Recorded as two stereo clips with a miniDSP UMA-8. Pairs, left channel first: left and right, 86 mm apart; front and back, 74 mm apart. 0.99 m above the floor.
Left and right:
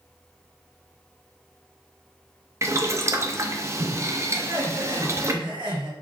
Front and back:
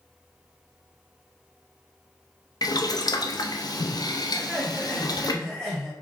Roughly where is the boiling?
Ahead right.